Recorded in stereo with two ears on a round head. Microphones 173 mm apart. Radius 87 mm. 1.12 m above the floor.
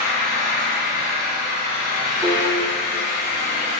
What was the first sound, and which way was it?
An engine running, 50° left (ahead or behind).